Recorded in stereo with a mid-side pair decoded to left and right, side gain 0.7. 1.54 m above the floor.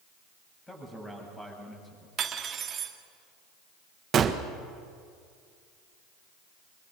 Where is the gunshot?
35° right, 1.5 m.